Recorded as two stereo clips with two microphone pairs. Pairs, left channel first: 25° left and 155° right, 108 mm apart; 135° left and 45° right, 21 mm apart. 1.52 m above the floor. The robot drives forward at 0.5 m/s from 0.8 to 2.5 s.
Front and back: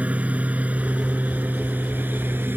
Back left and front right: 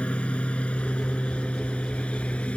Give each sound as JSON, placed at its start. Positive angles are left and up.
{"t": 0.0, "sound": "a lawn mower", "azimuth_deg": 130}